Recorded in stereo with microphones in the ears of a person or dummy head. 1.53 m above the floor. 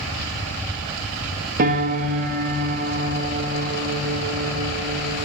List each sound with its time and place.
1.6 s a piano: 50° right (ahead or behind), 2 m